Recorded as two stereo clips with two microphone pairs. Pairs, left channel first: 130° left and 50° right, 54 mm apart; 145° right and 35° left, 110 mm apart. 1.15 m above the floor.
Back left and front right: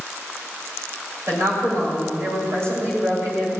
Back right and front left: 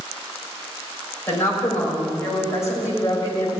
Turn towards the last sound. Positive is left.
turn(degrees=-85)